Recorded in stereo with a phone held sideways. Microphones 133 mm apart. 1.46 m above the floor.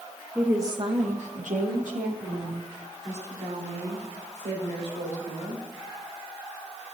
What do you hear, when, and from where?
0.3 s a woman speaking: 5° right (ahead or behind), 0.9 m; by 5.6 s 70° right (ahead or behind), 6.5 m